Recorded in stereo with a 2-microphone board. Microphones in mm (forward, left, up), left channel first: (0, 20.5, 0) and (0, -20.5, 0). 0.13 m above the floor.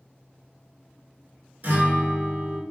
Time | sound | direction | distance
1.6 | a guitar | 45° right (ahead or behind) | 1.5 m